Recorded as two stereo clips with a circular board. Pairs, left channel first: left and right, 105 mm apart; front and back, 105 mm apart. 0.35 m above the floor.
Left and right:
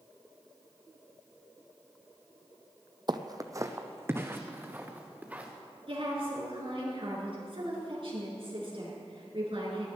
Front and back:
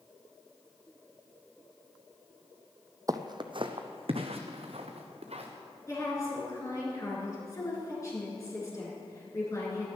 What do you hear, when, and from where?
3.1 s footsteps: 125° right, 0.7 m; by 5.5 s 165° right, 2.5 m
5.9 s a woman speaking: 60° right, 4.5 m